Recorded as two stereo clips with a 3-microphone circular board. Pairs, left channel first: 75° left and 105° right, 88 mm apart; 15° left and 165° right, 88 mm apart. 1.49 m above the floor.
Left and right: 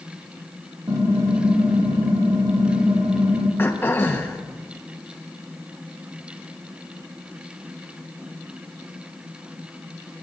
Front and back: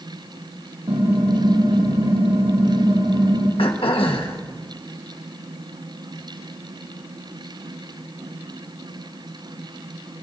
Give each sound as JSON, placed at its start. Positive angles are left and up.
{"t": 0.9, "sound": "typing on a keyboard", "azimuth_deg": -150, "distance_m": 2.5}
{"t": 3.6, "sound": "throat clearing", "azimuth_deg": 10, "distance_m": 1.3}